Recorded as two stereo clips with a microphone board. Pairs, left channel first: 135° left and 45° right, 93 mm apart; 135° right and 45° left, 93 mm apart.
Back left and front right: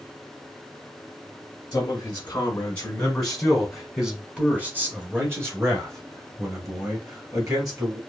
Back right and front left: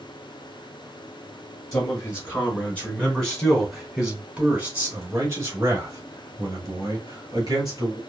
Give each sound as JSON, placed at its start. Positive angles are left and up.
{"t": 1.7, "sound": "a man speaking", "azimuth_deg": 175, "distance_m": 1.8}